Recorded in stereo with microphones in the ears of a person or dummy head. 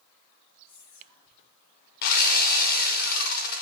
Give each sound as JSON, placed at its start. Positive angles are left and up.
{"t": 0.7, "sound": "whispering", "side_deg": 45, "distance_m": 2.5}
{"t": 2.0, "sound": "sawing", "side_deg": 55, "distance_m": 0.6}